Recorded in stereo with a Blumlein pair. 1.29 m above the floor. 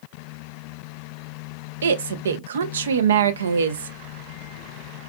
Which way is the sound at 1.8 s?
65° right.